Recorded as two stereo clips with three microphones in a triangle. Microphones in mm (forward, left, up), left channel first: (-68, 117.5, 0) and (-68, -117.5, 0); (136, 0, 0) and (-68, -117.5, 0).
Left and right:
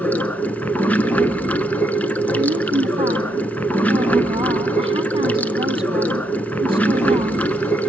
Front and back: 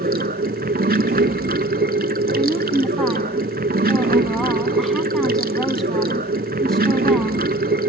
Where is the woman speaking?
55° right, 1.4 m.